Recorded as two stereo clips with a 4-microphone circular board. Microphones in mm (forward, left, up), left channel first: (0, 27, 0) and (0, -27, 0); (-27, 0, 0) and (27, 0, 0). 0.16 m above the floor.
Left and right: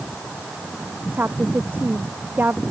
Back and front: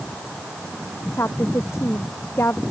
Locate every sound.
1.1 s a woman speaking: 140° right